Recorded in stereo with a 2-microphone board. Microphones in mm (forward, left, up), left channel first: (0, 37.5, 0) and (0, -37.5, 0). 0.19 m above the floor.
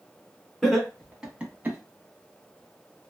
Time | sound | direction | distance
0.6 | laughter | 5° left (ahead or behind) | 1.6 m